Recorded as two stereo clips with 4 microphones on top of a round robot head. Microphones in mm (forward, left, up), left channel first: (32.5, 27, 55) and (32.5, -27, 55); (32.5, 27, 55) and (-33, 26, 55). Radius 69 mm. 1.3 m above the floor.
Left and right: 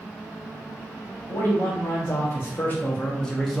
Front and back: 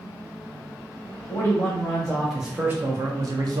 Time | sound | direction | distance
1.3 | a man speaking | 60° left | 1.1 m